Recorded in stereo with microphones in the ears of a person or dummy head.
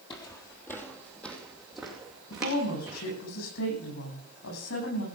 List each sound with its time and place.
0.1 s footsteps: 25° left (ahead or behind), 1.7 m; by 3.0 s 10° right (ahead or behind), 4.5 m
2.3 s a woman speaking: 80° left, 10 m